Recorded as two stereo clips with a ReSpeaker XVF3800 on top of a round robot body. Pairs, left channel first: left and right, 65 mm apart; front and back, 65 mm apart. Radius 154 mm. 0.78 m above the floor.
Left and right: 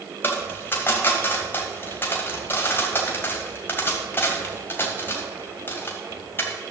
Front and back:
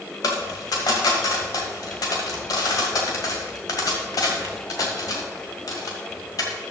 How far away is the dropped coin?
About 1.6 m.